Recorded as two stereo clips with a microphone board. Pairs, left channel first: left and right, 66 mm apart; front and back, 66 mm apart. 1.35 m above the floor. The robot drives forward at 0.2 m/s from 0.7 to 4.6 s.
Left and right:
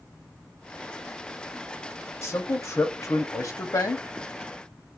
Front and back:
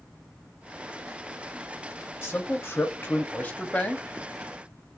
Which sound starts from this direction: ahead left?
A man speaking, at 2.2 s.